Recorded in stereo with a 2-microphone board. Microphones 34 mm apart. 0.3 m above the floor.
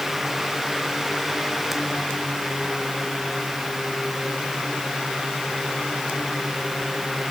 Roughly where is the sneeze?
I don't hear a sneeze.